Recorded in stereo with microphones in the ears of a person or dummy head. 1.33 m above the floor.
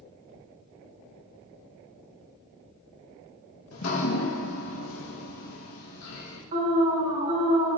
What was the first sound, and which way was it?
Dripping, 85° left.